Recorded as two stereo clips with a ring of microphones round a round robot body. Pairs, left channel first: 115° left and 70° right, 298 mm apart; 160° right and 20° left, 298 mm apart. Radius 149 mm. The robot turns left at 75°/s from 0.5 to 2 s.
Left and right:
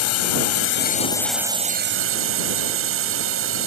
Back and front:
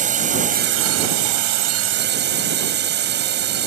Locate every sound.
0.0 s a drone: 85° left; by 3.7 s 30° right